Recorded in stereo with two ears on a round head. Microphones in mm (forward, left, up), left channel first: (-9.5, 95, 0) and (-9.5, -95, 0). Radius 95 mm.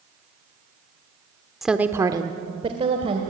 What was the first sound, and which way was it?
A woman speaking, centre (ahead or behind).